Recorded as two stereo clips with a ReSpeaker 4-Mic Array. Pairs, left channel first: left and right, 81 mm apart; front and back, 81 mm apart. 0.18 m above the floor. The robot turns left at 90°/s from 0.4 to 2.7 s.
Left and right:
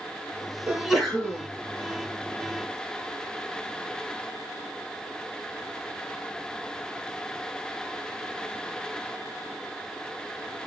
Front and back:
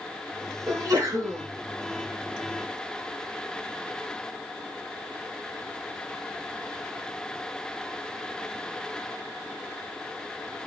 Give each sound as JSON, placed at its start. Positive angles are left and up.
{"t": 0.7, "sound": "a sneeze", "azimuth_deg": -150, "distance_m": 2.0}